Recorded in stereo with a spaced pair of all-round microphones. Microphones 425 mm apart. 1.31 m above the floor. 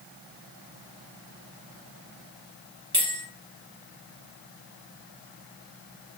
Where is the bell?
30° right (ahead or behind), 0.8 m.